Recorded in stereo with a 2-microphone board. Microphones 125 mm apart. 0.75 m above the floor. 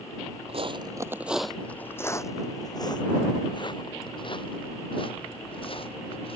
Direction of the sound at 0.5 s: 50° right (ahead or behind).